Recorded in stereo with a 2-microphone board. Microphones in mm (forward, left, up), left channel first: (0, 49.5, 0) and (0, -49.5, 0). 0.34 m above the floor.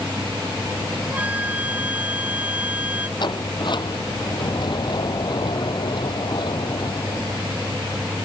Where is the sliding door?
55° left (ahead or behind).